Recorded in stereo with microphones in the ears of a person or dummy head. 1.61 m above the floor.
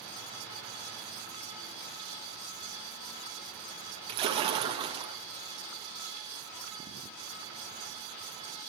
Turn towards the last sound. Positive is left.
turn(degrees=-25)  # may be behind; listen again after turning